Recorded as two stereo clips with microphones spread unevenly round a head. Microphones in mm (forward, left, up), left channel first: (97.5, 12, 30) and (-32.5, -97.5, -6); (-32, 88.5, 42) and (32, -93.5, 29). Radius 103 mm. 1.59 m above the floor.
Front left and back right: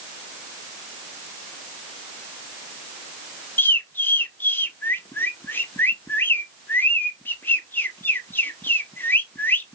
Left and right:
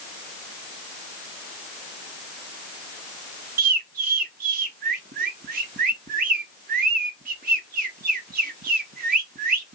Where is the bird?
25° right, 0.7 m.